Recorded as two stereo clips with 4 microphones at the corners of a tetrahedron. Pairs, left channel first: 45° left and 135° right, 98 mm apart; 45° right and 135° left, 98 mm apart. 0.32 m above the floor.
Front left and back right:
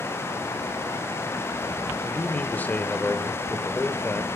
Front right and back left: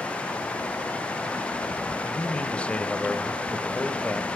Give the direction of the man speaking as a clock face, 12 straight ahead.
12 o'clock.